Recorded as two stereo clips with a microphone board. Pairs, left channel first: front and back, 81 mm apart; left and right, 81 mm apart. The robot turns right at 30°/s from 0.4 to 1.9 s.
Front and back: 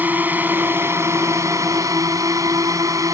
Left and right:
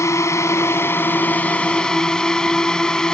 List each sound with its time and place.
0.0 s a drone: 120° left; by 3.1 s 165° left